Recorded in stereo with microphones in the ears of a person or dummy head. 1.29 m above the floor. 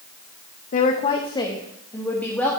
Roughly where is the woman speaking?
Left.